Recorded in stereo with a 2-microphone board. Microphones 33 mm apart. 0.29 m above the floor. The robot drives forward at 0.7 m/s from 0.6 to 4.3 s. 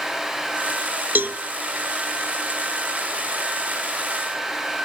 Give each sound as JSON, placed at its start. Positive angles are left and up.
{"t": 1.1, "sound": "a cowbell", "side_deg": -75, "distance_m": 0.6}